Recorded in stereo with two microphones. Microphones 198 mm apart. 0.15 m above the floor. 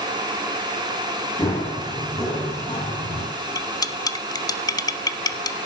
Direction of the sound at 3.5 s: 20° left (ahead or behind).